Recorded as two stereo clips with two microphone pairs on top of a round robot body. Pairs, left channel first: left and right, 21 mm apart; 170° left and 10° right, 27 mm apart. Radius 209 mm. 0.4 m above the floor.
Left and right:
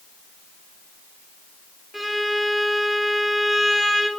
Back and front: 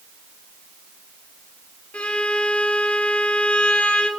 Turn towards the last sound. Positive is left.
turn(degrees=-170)